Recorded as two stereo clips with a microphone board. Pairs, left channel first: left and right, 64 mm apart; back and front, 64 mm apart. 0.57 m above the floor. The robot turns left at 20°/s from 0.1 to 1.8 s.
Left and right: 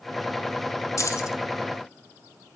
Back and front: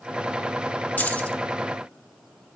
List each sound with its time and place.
1.0 s keys jangling: 115° left, 1.2 m; by 1.4 s 110° left, 1.2 m